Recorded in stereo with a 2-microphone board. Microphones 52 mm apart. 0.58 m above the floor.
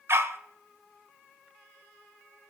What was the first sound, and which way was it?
A dog barking, 60° right (ahead or behind).